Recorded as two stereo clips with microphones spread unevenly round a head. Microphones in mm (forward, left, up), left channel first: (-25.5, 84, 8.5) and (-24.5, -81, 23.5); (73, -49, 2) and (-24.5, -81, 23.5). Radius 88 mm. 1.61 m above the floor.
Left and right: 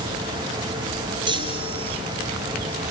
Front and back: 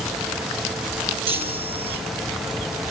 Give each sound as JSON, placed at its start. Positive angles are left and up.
{"t": 1.3, "sound": "a chime", "azimuth_deg": -150, "distance_m": 4.0}